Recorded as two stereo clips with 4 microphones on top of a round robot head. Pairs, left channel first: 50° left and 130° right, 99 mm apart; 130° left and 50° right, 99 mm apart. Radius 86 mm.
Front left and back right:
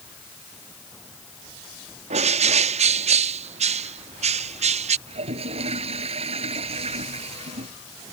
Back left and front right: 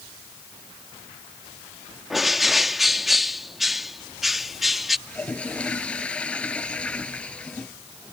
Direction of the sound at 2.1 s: 140° right.